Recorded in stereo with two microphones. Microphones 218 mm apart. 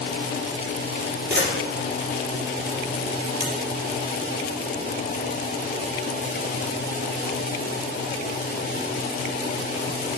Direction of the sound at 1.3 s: 60° right (ahead or behind).